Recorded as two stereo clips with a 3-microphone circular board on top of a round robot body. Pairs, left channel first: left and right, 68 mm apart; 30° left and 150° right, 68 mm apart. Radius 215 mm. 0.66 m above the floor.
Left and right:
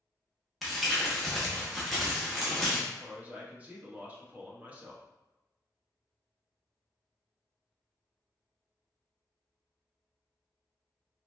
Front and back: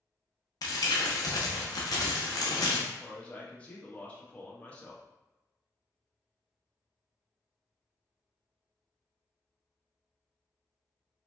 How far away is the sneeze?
I don't hear a sneeze.